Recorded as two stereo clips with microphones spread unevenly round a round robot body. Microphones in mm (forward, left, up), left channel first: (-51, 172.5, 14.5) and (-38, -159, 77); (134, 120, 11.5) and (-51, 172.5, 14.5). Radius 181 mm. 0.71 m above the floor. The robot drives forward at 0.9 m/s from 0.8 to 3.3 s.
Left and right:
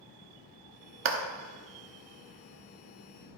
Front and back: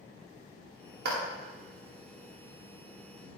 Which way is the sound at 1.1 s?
145° right.